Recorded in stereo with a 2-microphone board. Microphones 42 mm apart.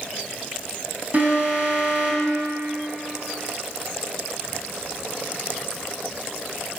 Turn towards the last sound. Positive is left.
turn(degrees=-40)  # may be behind; listen again after turning